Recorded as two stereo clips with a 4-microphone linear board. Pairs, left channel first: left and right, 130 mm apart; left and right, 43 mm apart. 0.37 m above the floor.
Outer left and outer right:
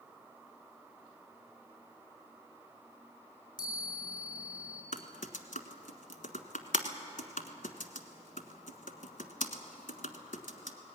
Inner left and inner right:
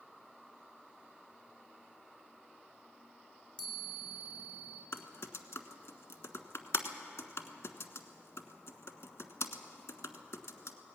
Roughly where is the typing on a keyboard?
Left.